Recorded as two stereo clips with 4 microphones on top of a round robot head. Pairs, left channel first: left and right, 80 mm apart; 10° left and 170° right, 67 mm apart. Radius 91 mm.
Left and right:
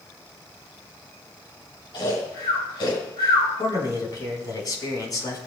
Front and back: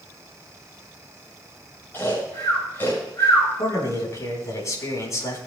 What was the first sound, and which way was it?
Snoring, 70° left.